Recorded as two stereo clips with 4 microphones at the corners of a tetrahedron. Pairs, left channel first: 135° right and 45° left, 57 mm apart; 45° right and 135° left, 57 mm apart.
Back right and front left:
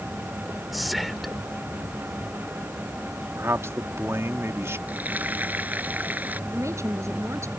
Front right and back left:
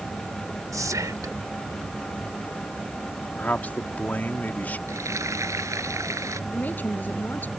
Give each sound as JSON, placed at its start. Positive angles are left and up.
{"t": 0.7, "sound": "whispering", "azimuth_deg": 135}
{"t": 3.4, "sound": "a man speaking", "azimuth_deg": 10}
{"t": 4.9, "sound": "frying", "azimuth_deg": 105}
{"t": 6.5, "sound": "a woman speaking", "azimuth_deg": 10}